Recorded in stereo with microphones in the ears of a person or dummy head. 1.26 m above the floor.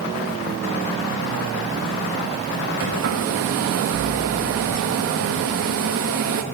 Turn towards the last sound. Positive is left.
turn(degrees=-70)  # may be behind; listen again after turning